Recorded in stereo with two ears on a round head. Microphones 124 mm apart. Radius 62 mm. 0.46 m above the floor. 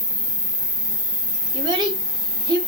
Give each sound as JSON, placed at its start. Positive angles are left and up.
{"t": 0.0, "sound": "an insect", "side_deg": 35, "distance_m": 2.5}
{"t": 1.5, "sound": "a child speaking", "side_deg": -30, "distance_m": 0.8}